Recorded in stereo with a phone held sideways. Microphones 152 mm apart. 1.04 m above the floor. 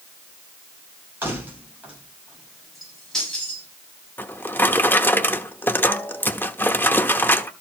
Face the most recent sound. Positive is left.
turn(degrees=15)  # may be behind; listen again after turning